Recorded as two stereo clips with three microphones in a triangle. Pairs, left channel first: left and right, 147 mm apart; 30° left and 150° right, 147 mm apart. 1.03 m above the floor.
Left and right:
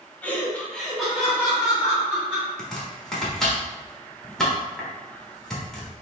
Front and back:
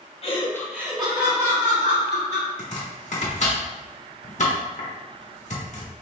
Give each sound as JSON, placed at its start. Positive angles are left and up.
{"t": 0.2, "sound": "laughter", "azimuth_deg": 15, "distance_m": 1.0}
{"t": 2.6, "sound": "chopping", "azimuth_deg": 5, "distance_m": 1.1}